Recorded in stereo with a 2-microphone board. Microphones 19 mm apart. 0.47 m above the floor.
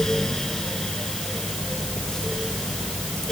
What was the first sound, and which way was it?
Only background noise.